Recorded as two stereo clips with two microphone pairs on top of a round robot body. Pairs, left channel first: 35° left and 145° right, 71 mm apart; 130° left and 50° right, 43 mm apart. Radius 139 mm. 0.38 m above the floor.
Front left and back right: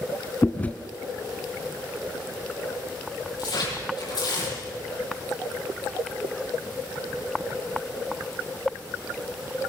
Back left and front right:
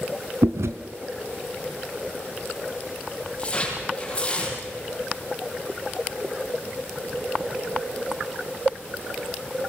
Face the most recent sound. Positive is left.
turn(degrees=60)